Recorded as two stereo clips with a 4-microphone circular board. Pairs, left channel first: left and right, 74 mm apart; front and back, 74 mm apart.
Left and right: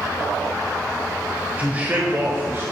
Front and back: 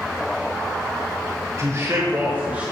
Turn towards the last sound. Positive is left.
turn(degrees=-115)